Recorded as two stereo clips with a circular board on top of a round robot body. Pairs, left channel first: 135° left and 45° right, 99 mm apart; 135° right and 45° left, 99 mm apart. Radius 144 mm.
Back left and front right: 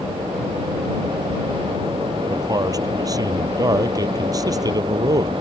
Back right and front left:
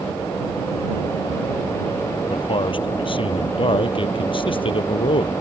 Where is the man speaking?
100° right.